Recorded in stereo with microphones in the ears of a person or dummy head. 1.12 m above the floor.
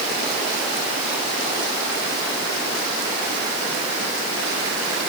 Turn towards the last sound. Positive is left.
No sound to turn to.